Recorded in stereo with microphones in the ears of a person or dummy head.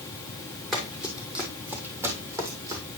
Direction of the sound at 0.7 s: Centre (ahead or behind).